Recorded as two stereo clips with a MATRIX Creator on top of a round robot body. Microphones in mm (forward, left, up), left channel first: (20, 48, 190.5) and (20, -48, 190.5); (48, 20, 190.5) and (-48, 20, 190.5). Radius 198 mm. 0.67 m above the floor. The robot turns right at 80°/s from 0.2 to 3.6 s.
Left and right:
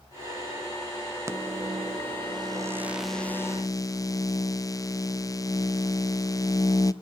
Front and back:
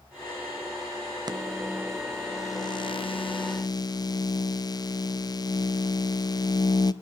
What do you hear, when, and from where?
1.3 s a microwave: 145° right, 0.7 m; by 6.9 s 40° left, 0.7 m